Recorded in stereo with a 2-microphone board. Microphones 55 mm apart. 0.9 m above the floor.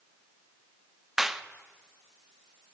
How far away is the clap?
About 0.9 m.